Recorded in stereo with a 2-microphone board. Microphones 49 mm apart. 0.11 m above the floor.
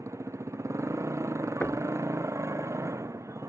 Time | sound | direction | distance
0.0 | a motorcycle | 75° right (ahead or behind) | ?
1.6 | knocking | 30° left (ahead or behind) | ?